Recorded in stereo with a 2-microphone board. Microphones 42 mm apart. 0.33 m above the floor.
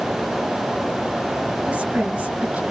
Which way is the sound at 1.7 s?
30° right (ahead or behind).